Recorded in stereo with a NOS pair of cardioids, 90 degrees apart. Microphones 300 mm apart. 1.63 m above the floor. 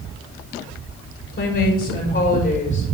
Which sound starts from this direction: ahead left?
A woman speaking, at 1.3 s.